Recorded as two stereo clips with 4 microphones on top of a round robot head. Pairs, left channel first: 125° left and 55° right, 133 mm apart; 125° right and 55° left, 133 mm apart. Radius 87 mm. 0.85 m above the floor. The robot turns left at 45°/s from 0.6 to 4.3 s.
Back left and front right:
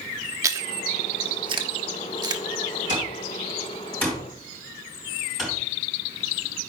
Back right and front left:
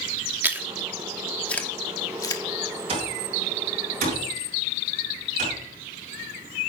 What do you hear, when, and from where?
0.4 s chewing: 10° right, 1.1 m; by 2.4 s 95° right, 1.1 m
2.9 s an alarm clock: 100° left, 5.5 m; by 5.6 s 35° left, 5.5 m